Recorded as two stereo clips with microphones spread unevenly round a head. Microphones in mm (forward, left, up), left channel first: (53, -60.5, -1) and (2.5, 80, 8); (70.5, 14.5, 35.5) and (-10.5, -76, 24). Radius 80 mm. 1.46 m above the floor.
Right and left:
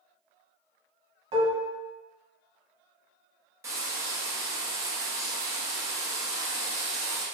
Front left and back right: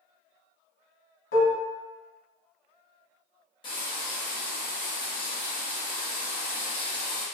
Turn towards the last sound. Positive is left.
turn(degrees=55)